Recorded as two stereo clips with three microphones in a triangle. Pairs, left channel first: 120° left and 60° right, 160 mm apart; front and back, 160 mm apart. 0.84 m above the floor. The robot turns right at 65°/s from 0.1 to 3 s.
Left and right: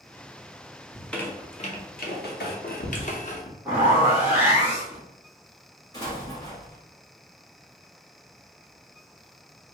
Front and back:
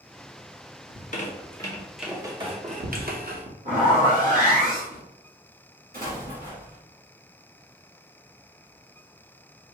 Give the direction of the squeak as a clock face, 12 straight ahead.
11 o'clock.